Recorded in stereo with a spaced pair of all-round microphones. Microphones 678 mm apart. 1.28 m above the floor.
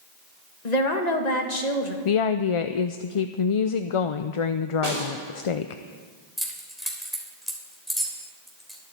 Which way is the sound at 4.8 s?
65° right (ahead or behind).